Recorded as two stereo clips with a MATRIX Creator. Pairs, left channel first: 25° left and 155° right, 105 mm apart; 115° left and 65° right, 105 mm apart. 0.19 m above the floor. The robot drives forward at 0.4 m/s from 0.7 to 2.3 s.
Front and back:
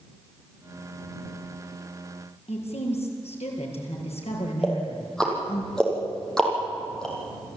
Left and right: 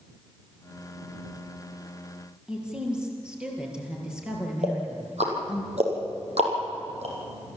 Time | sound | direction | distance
2.5 | a woman speaking | 15° left | 4.5 m
4.6 | ticking | 60° right | 5.5 m